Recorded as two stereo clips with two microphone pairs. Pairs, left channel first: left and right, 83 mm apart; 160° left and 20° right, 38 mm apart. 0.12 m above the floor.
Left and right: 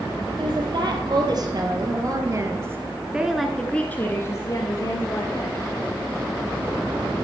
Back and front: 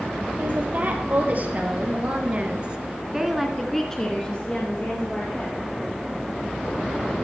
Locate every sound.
0.4 s a woman speaking: 60° right, 3 m; by 5.6 s 115° left, 2 m